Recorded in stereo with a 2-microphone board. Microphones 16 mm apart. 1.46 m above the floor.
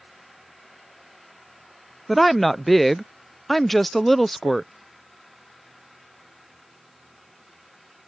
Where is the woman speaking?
10° left (ahead or behind).